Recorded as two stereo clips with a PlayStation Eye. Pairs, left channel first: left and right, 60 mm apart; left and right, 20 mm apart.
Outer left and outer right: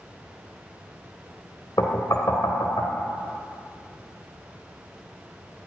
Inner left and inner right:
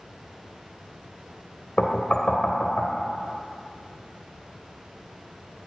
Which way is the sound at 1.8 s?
80° left.